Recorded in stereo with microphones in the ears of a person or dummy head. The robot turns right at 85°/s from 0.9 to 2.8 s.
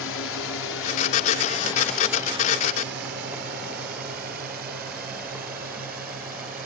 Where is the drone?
70° left (ahead or behind); by 6.7 s 50° right (ahead or behind).